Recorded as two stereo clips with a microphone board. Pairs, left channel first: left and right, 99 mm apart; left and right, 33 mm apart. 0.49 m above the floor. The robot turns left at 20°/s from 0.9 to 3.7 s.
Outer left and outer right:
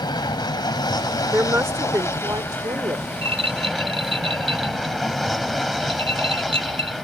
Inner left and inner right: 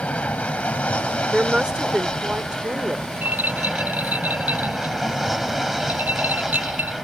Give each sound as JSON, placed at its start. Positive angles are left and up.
{"t": 0.0, "sound": "an aircraft", "azimuth_deg": 55}
{"t": 1.3, "sound": "a woman speaking", "azimuth_deg": -30}
{"t": 3.2, "sound": "a rattle", "side_deg": -85}